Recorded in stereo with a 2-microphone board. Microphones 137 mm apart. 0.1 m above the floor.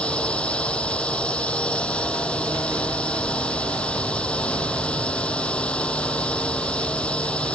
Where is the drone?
5° left (ahead or behind).